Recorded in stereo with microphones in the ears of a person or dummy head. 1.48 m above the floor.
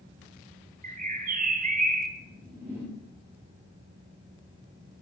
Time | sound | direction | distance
0.8 | a bird | 45° right (ahead or behind) | 1.1 m
2.2 | a whoosh | 15° right (ahead or behind) | 4.5 m